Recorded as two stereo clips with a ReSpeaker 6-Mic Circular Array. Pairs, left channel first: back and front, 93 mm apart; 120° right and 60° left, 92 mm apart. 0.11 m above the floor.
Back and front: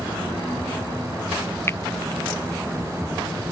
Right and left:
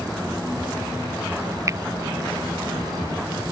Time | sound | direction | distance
1.7 | a finger snap | 115° left | ?